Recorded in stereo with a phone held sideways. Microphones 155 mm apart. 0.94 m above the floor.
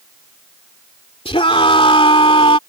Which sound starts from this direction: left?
A scream, at 1.2 s.